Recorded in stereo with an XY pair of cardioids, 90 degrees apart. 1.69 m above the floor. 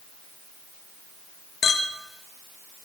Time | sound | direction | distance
1.6 | a clink | 55° left | 2.0 m